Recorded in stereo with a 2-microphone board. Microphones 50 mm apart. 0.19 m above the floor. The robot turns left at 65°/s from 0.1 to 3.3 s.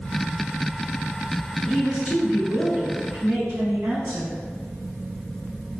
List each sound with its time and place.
1.6 s a woman speaking: 5° right, 1.4 m; by 4.3 s 110° right, 1.4 m